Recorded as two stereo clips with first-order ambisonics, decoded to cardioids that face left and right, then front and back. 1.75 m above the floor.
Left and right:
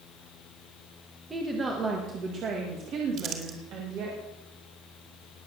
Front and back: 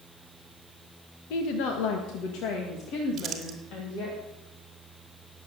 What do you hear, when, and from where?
1.3 s a woman speaking: 10° right, 1.8 m; by 4.2 s 50° right, 3 m
3.2 s crumpling: 125° right, 2 m